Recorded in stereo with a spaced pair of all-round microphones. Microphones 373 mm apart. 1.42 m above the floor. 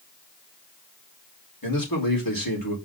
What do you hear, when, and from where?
1.6 s a man speaking: 60° left (ahead or behind), 4 m